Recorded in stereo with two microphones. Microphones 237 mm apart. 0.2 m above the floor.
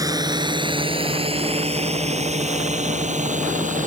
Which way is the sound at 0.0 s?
15° right (ahead or behind).